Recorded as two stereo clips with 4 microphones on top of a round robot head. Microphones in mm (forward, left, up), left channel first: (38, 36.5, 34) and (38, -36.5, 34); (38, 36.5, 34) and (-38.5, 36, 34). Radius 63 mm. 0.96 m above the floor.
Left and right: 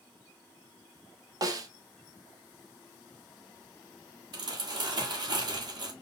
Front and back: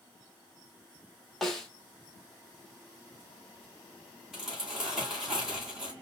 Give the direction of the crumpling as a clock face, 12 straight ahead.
3 o'clock.